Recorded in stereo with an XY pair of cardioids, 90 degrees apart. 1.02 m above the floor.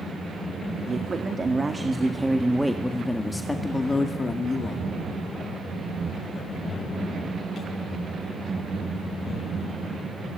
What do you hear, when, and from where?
0.9 s a man speaking: 40° right, 2 m; by 7.7 s 70° left, 4 m